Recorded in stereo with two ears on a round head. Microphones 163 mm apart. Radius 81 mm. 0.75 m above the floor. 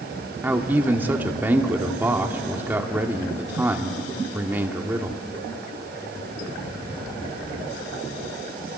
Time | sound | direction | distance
0.4 | a man speaking | 10° right (ahead or behind) | 1.8 m